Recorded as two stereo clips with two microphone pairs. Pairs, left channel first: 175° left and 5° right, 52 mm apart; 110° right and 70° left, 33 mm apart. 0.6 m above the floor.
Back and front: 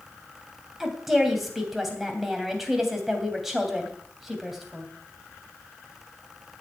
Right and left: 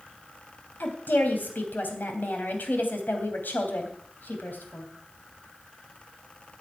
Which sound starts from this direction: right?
A woman speaking, at 0.8 s.